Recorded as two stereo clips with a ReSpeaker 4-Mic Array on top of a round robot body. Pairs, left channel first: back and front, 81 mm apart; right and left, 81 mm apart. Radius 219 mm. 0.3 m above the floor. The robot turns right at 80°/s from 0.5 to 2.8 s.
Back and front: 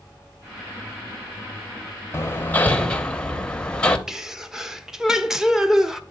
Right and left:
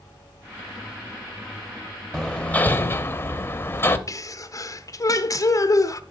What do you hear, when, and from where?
2.1 s hammering: 165° right, 1.1 m; by 4.0 s 115° right, 1.1 m
4.1 s a sneeze: 80° right, 1.0 m